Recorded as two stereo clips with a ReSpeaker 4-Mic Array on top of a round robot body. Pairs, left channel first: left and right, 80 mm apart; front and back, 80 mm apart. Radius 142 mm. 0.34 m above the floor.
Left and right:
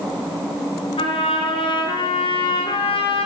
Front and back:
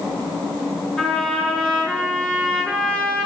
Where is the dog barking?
I don't hear a dog barking.